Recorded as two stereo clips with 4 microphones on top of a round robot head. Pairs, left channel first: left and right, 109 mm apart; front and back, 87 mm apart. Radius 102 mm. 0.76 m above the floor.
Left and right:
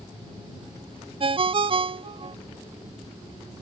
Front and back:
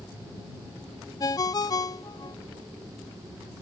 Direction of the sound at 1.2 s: 50° right.